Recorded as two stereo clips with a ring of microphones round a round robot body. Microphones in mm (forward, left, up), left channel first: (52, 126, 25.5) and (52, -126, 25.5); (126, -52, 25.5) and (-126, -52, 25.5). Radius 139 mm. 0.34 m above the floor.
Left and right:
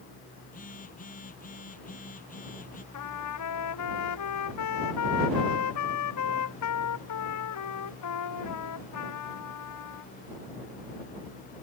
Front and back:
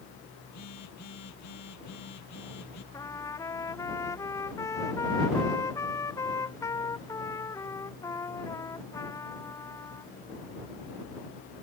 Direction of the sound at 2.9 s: 80° left.